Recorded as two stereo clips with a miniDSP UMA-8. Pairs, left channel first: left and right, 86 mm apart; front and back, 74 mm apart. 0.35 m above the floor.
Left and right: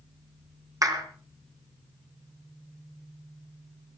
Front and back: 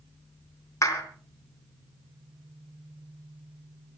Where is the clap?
45° right, 3.5 m.